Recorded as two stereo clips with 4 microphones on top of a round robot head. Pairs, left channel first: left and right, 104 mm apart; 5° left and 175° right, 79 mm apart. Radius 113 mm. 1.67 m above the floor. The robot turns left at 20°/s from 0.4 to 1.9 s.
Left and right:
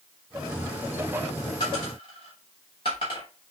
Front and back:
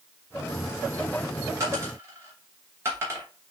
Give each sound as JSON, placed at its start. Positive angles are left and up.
{"t": 1.6, "sound": "a dropped coin", "azimuth_deg": 145, "distance_m": 1.1}